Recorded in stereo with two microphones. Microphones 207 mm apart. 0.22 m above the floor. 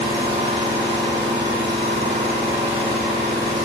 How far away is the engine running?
About 0.7 m.